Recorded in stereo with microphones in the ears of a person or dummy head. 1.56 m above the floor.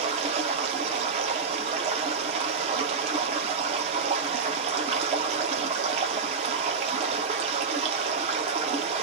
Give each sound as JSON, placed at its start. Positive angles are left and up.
{"t": 0.0, "sound": "running water", "side_deg": -35, "distance_m": 0.9}